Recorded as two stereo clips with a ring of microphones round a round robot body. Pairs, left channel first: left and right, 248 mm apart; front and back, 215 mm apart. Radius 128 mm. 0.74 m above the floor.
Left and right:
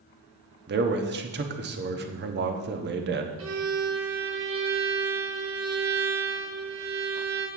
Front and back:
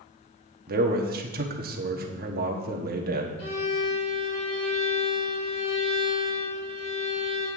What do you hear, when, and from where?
0.7 s a man speaking: 135° right, 1.0 m
3.4 s a violin: 60° right, 1.7 m